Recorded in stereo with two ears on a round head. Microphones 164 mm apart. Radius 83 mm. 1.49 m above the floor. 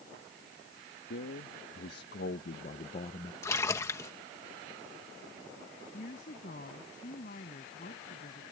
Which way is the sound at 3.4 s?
15° left (ahead or behind).